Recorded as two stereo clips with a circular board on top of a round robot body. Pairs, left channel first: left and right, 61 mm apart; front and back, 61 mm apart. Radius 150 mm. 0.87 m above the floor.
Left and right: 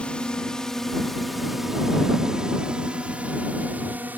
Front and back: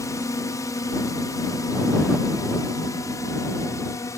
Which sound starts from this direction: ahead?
A drone, at 0.0 s.